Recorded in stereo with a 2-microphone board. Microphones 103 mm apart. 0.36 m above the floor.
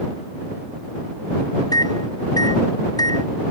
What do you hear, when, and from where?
1.7 s a microwave: 45° left (ahead or behind)